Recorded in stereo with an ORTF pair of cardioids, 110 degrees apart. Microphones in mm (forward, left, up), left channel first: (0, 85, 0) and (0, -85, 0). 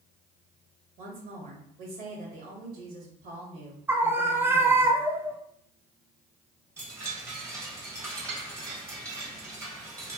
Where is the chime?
15° right, 1.5 m.